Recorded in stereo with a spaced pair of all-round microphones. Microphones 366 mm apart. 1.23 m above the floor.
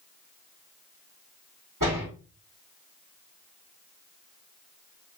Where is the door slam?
60° right (ahead or behind), 4.5 m.